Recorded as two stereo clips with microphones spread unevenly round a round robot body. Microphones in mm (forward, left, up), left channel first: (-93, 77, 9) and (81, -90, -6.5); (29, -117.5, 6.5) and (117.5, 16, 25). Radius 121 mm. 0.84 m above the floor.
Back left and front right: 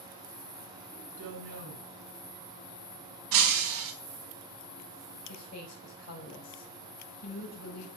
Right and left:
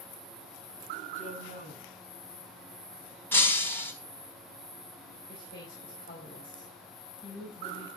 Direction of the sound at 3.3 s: 45° right.